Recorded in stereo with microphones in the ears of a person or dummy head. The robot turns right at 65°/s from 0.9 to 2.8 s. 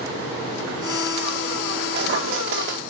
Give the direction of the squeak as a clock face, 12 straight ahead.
4 o'clock.